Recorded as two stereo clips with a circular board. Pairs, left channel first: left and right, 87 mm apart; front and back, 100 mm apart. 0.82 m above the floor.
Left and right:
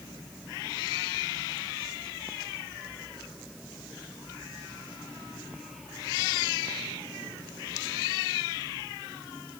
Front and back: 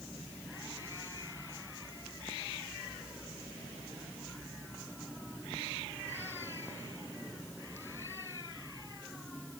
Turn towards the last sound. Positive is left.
No sound to turn to.